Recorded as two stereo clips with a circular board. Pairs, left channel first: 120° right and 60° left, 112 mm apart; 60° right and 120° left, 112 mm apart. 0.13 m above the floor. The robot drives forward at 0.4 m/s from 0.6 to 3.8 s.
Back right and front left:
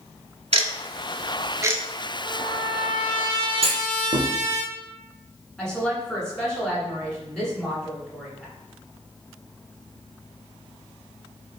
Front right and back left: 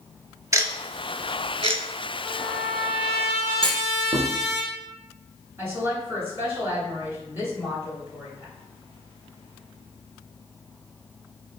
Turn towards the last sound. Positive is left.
turn(degrees=160)